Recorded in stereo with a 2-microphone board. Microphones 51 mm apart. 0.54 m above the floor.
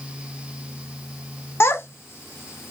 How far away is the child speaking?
About 0.7 m.